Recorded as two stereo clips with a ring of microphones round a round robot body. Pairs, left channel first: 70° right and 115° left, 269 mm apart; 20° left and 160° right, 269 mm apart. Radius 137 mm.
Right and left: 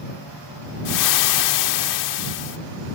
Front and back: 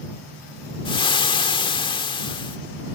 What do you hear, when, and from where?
0.8 s frying: 50° right